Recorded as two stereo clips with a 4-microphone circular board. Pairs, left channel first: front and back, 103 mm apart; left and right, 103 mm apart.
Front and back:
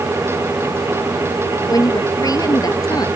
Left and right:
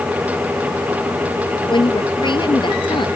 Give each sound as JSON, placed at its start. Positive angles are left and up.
{"t": 1.7, "sound": "a woman speaking", "azimuth_deg": 55}